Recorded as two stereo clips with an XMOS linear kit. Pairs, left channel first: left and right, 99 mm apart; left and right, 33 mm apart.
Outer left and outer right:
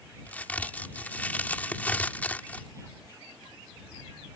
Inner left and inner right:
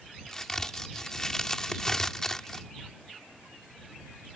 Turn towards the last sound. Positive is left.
turn(degrees=15)  # may be behind; listen again after turning